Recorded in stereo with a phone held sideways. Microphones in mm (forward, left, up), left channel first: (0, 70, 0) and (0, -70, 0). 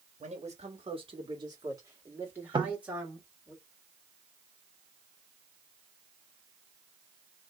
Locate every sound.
0.2 s a man speaking: 60° right (ahead or behind), 1.3 m; by 3.5 s 5° right (ahead or behind), 2.5 m
2.5 s knocking: 35° right (ahead or behind), 0.6 m